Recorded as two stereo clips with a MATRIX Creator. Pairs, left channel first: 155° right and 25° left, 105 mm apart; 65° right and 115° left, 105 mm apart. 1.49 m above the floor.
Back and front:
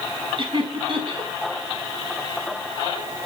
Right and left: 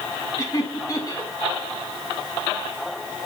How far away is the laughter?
About 3 m.